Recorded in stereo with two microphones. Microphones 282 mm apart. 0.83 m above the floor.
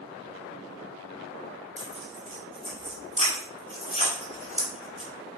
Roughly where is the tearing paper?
Right.